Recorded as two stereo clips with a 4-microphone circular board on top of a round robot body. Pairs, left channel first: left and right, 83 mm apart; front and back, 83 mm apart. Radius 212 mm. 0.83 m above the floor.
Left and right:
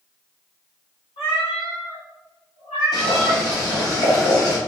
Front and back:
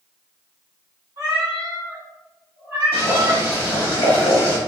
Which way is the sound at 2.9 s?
45° left.